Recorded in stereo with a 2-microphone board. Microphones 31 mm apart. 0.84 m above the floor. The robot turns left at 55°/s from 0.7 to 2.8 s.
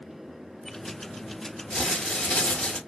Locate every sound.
1.7 s crumpling: 130° left, 1.5 m; by 2.8 s 70° left, 1.5 m